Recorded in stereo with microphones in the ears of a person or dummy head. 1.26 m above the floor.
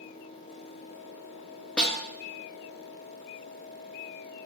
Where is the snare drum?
5° left (ahead or behind), 0.6 m.